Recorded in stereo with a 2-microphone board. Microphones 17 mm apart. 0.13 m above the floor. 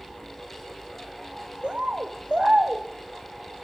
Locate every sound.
1.6 s a bird: 70° right (ahead or behind), 1.1 m